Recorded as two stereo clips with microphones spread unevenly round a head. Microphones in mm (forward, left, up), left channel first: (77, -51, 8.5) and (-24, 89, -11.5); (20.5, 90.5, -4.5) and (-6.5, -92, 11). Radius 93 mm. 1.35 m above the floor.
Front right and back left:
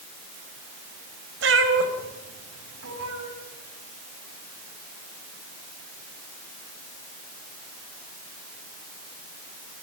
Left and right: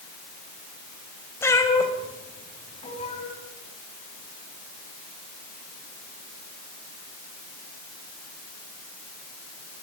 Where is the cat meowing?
160° left, 3.5 m; by 3.3 s 145° left, 5 m.